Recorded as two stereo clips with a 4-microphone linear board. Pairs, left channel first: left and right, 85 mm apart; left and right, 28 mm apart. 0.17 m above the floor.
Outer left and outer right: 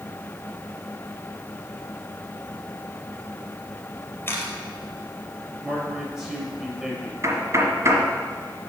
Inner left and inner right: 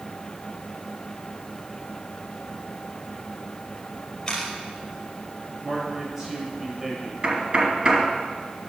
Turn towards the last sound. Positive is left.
turn(degrees=-35)  # may be behind; listen again after turning